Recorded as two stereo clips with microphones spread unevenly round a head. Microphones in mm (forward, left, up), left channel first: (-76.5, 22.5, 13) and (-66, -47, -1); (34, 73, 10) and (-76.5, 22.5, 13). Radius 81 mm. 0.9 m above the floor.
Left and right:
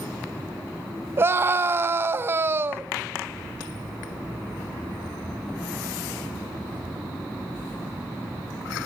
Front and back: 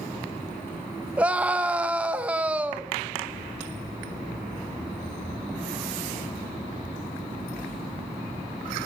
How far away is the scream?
About 1.1 m.